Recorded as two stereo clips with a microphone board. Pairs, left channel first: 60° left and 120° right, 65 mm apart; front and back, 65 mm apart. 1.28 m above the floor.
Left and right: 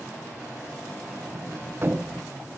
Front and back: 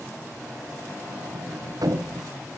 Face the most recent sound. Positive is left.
turn(degrees=-175)